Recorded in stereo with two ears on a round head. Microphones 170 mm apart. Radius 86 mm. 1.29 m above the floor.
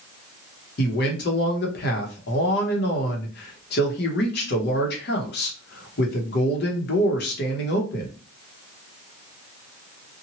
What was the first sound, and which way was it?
A man speaking, 55° left (ahead or behind).